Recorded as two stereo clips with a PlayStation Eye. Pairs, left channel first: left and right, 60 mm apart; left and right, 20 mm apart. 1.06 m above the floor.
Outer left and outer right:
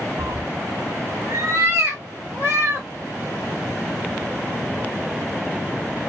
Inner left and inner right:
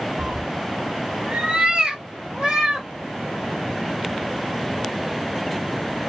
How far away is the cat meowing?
About 0.7 m.